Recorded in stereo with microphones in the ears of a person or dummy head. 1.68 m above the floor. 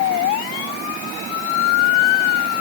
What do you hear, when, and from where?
Only background noise.